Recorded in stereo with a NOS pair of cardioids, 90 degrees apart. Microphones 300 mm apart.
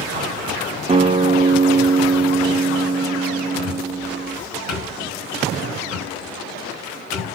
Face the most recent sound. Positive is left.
turn(degrees=60)